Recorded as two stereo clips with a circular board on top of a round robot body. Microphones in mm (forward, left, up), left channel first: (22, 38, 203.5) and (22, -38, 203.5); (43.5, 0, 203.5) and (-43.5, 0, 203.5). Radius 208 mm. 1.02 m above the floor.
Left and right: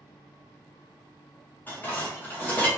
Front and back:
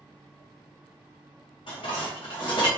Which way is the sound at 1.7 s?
25° left.